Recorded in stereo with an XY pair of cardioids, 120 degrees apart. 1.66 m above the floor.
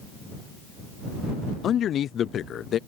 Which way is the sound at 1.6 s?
55° left.